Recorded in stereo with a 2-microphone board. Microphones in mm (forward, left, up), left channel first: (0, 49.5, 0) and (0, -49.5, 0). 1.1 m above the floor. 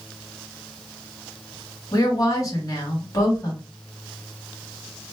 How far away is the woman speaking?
About 1.7 m.